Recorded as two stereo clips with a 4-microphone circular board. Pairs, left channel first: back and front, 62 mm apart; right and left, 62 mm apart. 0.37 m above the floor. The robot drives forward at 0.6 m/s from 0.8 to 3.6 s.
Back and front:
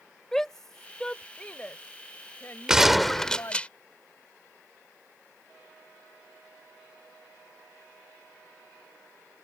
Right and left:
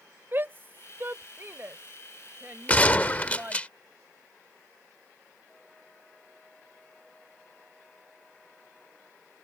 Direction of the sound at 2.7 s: 65° right.